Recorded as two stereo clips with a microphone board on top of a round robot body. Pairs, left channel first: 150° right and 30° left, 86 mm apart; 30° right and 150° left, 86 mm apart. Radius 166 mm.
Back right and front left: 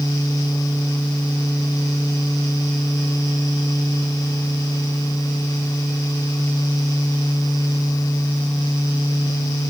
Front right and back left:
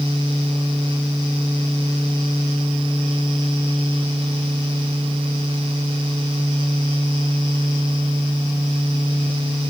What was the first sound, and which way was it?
Only background noise.